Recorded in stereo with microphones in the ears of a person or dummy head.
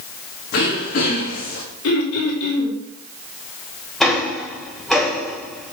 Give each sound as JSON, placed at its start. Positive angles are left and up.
{"t": 0.5, "sound": "throat clearing", "side_deg": 55, "distance_m": 2.0}
{"t": 1.8, "sound": "throat clearing", "side_deg": 75, "distance_m": 3.0}
{"t": 4.0, "sound": "ticking", "side_deg": -5, "distance_m": 1.4}